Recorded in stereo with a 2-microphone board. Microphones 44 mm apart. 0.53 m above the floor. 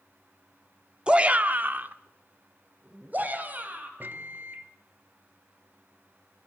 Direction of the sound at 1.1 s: 20° right (ahead or behind).